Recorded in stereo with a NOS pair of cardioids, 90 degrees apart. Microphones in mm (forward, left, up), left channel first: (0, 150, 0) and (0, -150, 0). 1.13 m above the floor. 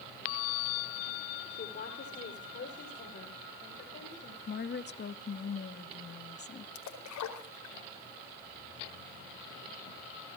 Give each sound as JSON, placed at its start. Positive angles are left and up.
{"t": 1.5, "sound": "a woman speaking", "azimuth_deg": 35, "distance_m": 4.0}
{"t": 4.5, "sound": "a woman speaking", "azimuth_deg": 35, "distance_m": 1.9}
{"t": 6.8, "sound": "a splash", "azimuth_deg": 65, "distance_m": 4.5}